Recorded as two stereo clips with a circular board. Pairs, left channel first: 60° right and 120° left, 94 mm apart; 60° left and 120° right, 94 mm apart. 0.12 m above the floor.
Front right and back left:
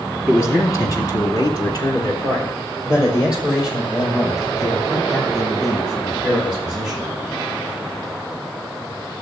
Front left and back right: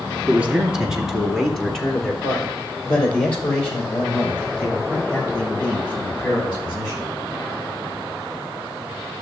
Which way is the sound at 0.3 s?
75° right.